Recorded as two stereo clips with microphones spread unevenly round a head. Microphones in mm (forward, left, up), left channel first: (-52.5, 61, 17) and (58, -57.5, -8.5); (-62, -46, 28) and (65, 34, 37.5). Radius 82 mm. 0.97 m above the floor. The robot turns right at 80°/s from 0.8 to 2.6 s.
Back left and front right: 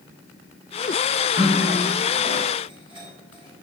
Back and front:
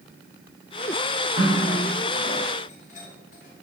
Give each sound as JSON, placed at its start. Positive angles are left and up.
{"t": 1.4, "sound": "a running tap", "azimuth_deg": 150, "distance_m": 1.8}